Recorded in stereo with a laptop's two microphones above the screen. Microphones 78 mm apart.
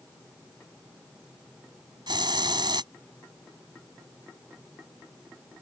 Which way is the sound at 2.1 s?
80° right.